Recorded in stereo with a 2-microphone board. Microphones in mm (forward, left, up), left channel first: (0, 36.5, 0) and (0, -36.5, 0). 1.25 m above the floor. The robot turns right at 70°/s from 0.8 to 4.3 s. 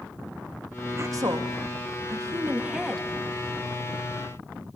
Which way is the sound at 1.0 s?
40° right (ahead or behind).